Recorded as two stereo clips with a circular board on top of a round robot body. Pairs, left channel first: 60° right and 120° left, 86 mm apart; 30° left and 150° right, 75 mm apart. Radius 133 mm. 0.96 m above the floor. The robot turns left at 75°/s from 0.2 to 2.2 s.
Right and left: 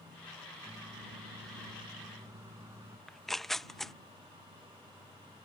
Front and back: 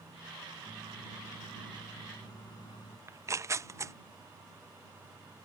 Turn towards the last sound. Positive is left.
turn(degrees=-145)